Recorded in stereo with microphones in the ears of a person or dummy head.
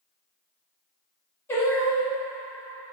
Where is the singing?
10° left (ahead or behind), 0.6 m.